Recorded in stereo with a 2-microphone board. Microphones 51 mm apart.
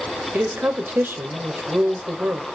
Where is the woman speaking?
45° right (ahead or behind), 1.9 m.